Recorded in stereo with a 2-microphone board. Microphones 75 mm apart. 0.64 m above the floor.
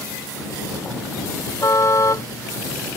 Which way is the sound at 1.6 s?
45° left (ahead or behind).